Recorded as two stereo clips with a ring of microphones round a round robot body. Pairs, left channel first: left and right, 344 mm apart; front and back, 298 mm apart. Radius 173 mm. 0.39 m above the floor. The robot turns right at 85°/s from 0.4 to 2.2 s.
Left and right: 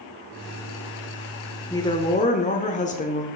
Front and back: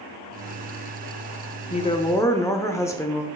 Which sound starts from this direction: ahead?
A woman speaking, at 1.7 s.